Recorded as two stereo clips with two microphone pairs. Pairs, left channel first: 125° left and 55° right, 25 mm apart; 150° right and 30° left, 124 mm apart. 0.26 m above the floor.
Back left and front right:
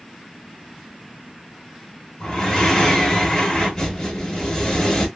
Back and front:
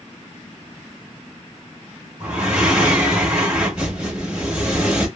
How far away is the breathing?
About 1.0 m.